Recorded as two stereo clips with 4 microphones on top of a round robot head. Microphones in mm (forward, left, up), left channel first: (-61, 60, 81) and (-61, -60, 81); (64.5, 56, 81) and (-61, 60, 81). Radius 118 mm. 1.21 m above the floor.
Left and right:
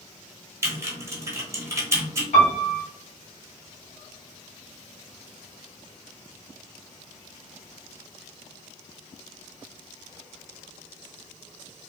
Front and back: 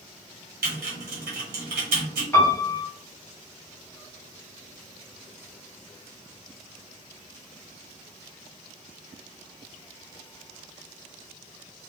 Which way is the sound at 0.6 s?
155° right.